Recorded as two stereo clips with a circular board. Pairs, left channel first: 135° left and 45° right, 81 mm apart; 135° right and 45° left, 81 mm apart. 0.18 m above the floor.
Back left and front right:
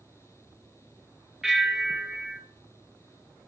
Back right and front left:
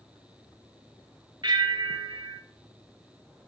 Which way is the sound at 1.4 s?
40° left.